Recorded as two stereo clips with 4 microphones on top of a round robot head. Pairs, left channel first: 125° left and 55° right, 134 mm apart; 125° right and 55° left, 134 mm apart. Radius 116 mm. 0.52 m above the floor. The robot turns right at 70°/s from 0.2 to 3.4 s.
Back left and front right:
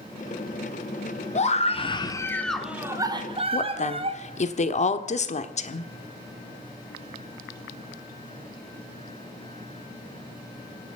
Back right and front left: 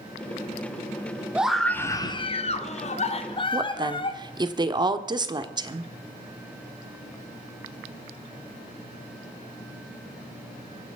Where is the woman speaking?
105° left, 1.3 m.